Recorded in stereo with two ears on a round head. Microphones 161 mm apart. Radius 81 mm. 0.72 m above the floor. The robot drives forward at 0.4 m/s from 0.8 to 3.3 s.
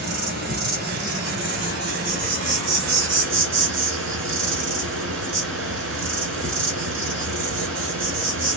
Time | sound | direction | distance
0.0 | an insect | 60° right (ahead or behind) | 1.8 m